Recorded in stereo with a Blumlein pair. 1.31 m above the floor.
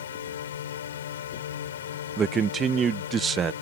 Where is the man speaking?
20° right.